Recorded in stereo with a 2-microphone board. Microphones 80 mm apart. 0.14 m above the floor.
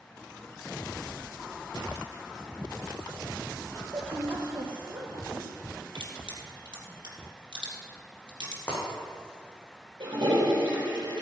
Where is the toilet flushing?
65° right (ahead or behind), 4 m.